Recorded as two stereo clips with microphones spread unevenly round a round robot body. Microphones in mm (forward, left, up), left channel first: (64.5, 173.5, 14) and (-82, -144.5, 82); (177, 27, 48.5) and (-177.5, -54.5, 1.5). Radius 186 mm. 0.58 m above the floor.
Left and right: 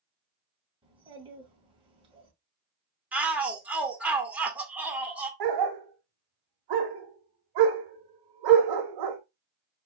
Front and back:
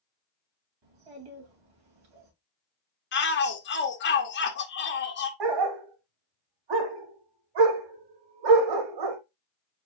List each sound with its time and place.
0.8 s a child speaking: 170° left, 2.5 m
3.1 s a shout: 5° right, 1.0 m
5.4 s a dog barking: 140° right, 0.9 m